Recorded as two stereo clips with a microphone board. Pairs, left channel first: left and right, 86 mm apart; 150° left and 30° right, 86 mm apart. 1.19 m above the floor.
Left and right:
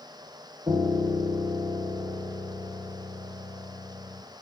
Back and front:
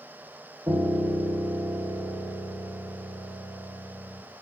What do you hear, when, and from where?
0.7 s a piano: 80° right, 1.3 m